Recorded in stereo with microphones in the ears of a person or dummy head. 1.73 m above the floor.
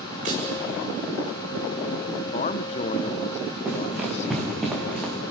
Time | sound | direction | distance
0.2 | tapping | 45° right (ahead or behind) | 8 m
2.1 | a man speaking | 40° left (ahead or behind) | 1.0 m
3.6 | running footsteps | 5° right (ahead or behind) | 4.5 m